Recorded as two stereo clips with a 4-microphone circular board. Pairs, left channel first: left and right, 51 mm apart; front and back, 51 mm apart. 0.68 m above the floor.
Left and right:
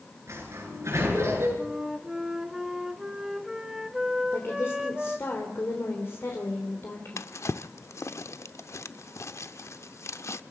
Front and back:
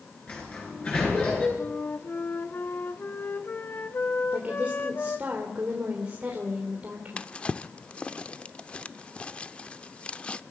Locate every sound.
0.3 s a sliding door: 60° right, 8.5 m
1.6 s a flute: 10° right, 1.1 m
4.3 s a woman speaking: 120° left, 3 m
7.2 s a drawer: 70° left, 0.6 m